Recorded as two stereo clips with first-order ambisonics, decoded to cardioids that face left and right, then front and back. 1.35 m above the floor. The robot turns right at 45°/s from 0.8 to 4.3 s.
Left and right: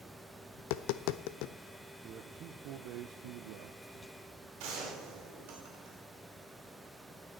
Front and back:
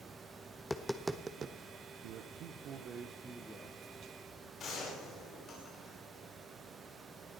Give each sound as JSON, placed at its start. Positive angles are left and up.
{"t": 0.6, "sound": "tapping", "azimuth_deg": 85, "distance_m": 0.6}
{"t": 2.0, "sound": "a man speaking", "azimuth_deg": -155, "distance_m": 0.9}
{"t": 4.6, "sound": "a gunshot", "azimuth_deg": -65, "distance_m": 5.0}